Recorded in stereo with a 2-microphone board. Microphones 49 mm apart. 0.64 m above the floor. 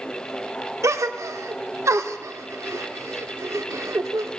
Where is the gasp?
80° right, 0.6 m.